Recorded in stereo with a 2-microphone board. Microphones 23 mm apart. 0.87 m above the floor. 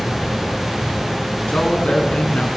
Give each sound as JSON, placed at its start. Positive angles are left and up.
{"t": 1.5, "sound": "a man speaking", "side_deg": 65, "distance_m": 8.0}